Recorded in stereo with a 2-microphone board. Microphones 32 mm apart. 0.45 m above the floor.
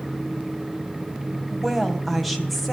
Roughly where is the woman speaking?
Centre.